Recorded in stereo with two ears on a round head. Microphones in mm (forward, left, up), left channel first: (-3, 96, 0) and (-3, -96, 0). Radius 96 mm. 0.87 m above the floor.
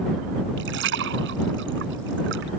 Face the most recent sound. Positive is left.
turn(degrees=-60)  # may be behind; listen again after turning